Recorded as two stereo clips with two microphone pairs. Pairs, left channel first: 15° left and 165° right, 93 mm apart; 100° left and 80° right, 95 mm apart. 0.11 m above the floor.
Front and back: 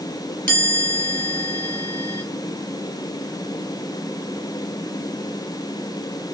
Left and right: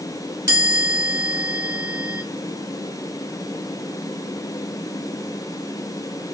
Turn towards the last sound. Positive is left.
turn(degrees=-40)